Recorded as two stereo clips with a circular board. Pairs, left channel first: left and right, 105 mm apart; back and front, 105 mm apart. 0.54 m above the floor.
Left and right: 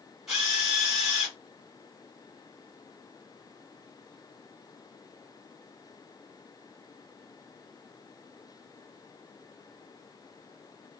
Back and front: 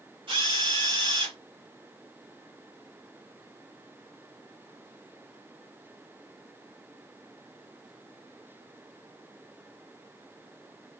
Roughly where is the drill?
Ahead.